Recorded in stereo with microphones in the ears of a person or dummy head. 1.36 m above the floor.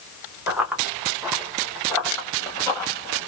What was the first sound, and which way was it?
Running footsteps, 10° right (ahead or behind).